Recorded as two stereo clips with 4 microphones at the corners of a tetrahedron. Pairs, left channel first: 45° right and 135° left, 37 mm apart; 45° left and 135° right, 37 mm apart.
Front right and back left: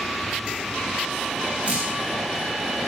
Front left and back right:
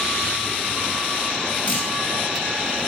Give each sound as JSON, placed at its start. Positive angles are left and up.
{"t": 1.6, "sound": "dripping", "azimuth_deg": 80, "distance_m": 1.9}